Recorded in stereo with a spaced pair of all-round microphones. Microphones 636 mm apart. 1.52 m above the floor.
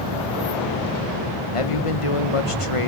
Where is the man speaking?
55° left (ahead or behind), 1.4 m.